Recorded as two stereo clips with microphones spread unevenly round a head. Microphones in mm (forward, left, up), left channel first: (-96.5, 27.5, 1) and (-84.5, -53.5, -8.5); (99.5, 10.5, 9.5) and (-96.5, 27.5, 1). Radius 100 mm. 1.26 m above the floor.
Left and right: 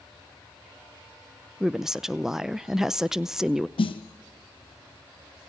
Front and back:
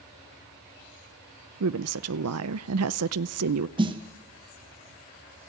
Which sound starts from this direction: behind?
A woman speaking, at 1.6 s.